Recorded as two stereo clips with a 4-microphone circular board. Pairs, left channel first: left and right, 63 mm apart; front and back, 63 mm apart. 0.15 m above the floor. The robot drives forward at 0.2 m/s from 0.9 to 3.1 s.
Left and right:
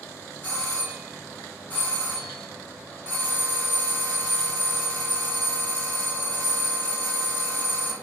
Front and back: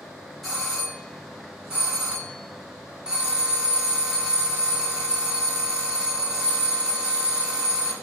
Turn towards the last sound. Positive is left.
turn(degrees=125)